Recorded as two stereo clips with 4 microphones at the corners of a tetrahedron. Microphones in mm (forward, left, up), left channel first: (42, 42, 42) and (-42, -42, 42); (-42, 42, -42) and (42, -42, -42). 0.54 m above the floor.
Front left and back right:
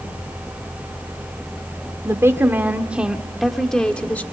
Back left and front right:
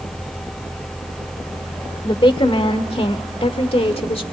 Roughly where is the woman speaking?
Behind.